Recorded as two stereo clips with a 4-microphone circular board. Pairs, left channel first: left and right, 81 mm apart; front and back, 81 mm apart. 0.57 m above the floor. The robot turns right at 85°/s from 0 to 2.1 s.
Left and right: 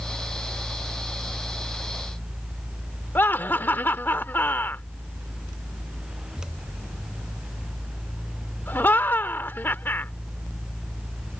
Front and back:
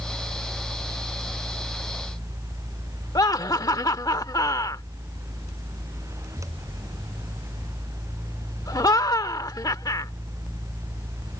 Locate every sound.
3.1 s laughter: 30° left